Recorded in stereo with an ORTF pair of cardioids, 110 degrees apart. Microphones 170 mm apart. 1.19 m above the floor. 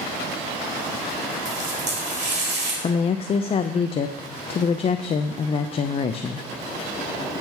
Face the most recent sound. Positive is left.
turn(degrees=35)